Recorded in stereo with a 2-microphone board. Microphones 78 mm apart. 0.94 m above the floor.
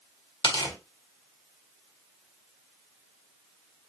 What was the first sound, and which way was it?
Tearing paper, 80° left.